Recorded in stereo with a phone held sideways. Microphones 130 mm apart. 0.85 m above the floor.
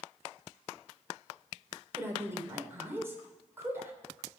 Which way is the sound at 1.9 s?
20° right (ahead or behind).